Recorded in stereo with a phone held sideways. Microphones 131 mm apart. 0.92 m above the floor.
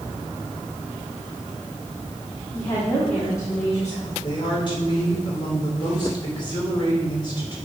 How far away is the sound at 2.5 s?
About 1.7 m.